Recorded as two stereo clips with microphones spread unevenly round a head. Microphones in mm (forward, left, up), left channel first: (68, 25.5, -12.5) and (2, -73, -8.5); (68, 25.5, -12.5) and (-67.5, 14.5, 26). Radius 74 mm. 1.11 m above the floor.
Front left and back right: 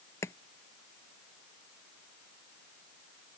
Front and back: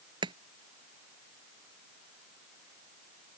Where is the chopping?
130° left.